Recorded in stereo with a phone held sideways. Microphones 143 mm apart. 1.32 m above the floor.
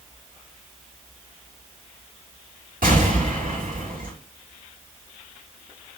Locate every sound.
2.8 s an explosion: 75° right (ahead or behind), 2.5 m